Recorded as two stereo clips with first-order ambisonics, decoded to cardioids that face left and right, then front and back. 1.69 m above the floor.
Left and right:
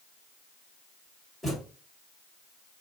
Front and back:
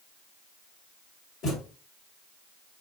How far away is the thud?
About 1.9 m.